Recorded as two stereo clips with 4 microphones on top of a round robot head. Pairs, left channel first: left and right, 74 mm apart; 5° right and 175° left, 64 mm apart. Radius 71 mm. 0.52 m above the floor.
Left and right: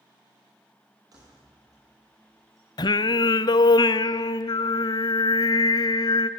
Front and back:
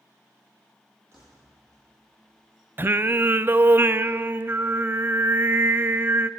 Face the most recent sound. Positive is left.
turn(degrees=120)